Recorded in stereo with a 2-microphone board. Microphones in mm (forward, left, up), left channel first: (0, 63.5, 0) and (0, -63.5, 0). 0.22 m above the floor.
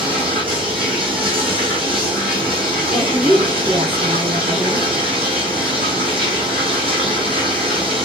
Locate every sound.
0.0 s running water: 45° right (ahead or behind), 1.9 m
2.9 s a woman speaking: 45° right (ahead or behind), 2.5 m